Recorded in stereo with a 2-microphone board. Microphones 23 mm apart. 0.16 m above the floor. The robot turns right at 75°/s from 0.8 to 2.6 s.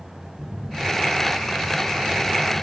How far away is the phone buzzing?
About 2.5 m.